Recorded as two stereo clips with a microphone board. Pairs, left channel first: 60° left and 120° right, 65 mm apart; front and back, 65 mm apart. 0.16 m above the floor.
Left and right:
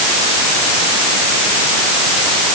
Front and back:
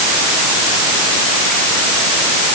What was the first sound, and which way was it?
Only background noise.